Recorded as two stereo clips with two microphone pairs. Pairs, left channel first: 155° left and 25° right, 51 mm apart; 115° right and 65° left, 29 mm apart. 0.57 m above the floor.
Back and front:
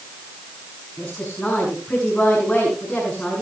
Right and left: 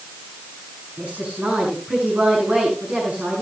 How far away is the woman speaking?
About 7 m.